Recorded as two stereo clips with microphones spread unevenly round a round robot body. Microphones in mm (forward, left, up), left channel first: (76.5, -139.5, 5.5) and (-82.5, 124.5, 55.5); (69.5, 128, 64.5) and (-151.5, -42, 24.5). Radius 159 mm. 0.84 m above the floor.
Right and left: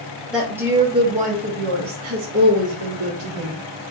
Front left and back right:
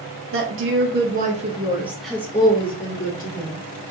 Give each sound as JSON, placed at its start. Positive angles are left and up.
{"t": 0.3, "sound": "a woman speaking", "azimuth_deg": -145, "distance_m": 1.1}